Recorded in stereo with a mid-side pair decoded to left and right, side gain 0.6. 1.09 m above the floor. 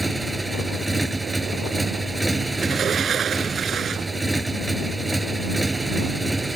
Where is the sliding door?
45° right.